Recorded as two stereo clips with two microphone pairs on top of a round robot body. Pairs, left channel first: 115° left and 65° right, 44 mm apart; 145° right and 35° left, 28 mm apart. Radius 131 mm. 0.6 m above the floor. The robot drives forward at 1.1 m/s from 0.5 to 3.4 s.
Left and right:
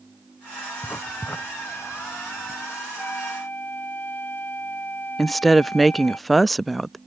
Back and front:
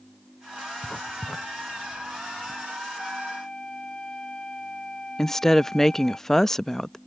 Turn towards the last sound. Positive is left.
turn(degrees=140)